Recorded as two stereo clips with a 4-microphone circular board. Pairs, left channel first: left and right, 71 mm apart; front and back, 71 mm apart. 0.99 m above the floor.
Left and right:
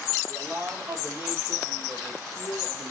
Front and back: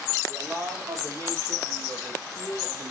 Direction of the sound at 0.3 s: 150° right.